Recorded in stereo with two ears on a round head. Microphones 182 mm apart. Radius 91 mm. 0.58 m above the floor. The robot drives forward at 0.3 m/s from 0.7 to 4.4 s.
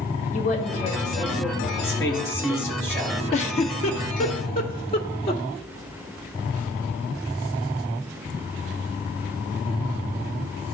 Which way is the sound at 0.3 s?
40° left (ahead or behind).